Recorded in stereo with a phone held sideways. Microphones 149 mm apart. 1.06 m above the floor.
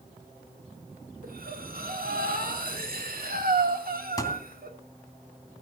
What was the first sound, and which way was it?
Breathing, 80° right.